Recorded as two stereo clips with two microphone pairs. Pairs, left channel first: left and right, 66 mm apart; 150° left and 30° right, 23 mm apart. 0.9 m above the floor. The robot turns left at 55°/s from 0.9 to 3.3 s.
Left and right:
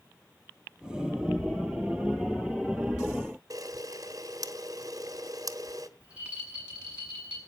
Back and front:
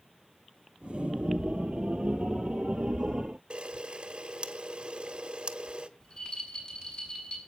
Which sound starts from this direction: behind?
A rattle, at 6.0 s.